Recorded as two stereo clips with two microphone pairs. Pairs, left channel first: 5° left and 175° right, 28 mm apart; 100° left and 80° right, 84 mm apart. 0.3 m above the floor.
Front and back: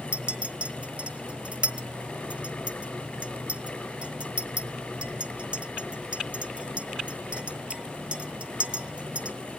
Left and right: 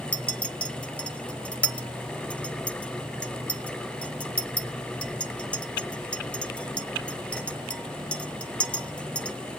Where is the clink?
170° left, 1.1 m.